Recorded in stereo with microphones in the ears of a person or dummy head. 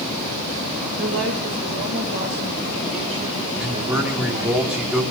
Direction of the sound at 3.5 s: 10° right (ahead or behind).